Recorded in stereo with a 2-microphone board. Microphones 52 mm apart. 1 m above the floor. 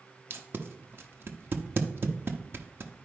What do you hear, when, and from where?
0.3 s tape being pulled: 40° right (ahead or behind), 0.9 m